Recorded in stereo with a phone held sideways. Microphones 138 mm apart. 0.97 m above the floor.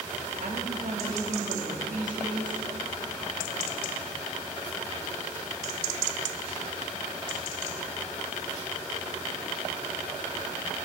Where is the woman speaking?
75° right (ahead or behind), 1.8 m.